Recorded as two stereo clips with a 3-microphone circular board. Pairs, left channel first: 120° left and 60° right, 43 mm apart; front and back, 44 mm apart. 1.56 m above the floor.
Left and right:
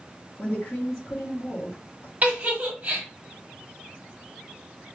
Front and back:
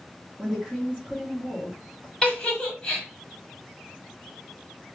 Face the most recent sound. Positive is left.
turn(degrees=-55)